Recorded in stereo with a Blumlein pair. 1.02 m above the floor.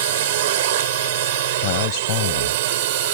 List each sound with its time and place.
0.0 s a drone: 55° right
1.6 s a man speaking: 45° left